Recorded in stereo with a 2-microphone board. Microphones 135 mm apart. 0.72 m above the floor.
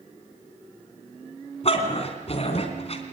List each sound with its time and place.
1.6 s a dog barking: 50° left (ahead or behind), 3 m